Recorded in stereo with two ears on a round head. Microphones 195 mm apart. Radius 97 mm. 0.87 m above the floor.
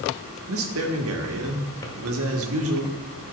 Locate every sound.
0.5 s a man speaking: 65° right (ahead or behind), 1.6 m
1.8 s a drawer: 15° left (ahead or behind), 1.3 m